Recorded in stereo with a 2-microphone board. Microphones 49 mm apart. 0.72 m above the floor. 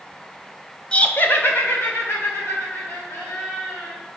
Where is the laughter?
25° left (ahead or behind), 0.5 m; by 4.0 s 65° left (ahead or behind), 3 m.